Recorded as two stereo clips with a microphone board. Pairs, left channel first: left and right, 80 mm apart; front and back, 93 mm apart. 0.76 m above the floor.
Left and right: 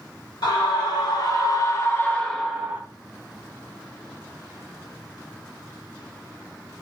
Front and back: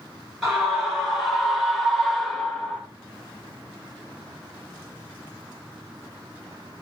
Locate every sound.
0.4 s a scream: 95° left, 1.6 m; by 2.8 s 75° right, 0.7 m